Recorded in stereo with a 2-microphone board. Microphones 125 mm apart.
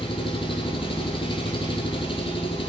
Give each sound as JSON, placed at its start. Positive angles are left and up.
{"t": 0.0, "sound": "an engine running", "side_deg": 45, "distance_m": 1.5}